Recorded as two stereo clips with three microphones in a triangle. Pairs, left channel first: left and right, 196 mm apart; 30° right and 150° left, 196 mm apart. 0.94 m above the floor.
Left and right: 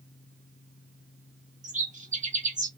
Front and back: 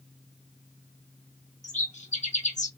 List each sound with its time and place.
1.6 s a bird: 60° right, 0.7 m